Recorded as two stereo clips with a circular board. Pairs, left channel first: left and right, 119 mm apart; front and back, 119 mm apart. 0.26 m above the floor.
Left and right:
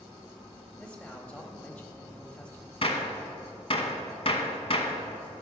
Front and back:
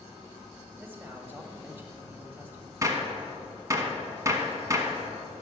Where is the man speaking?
150° left, 1.0 m.